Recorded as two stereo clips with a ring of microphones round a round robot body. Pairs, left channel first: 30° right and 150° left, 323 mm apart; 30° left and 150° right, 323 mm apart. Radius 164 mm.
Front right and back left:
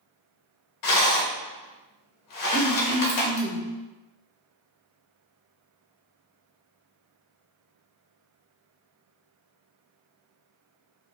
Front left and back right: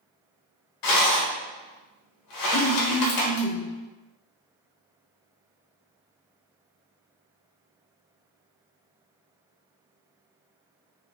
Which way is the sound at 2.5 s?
60° left.